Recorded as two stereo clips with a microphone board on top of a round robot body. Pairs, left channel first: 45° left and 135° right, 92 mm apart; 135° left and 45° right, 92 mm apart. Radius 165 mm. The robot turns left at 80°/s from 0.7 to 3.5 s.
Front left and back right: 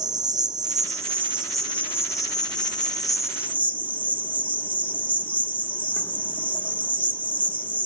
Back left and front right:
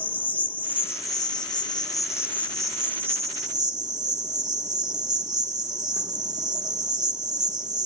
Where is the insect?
160° right, 1.0 m; by 7.9 s 20° right, 1.0 m.